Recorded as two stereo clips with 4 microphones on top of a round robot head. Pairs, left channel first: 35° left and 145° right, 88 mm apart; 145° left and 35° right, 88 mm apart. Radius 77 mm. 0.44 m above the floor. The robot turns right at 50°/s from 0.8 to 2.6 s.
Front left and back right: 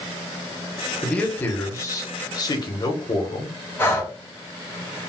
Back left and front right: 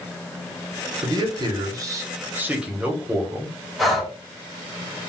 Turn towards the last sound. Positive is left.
turn(degrees=50)